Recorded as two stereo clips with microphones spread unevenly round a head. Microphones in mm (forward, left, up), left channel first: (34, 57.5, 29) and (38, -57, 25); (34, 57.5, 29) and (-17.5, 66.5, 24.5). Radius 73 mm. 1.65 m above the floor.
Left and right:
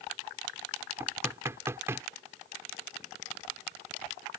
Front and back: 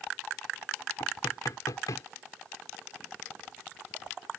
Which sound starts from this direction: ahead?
Knocking, at 1.0 s.